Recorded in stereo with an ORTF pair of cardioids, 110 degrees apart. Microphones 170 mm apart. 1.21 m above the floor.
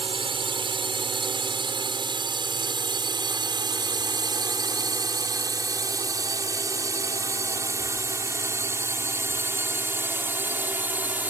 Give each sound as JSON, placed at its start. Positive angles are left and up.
{"t": 0.0, "sound": "a drone", "azimuth_deg": -30}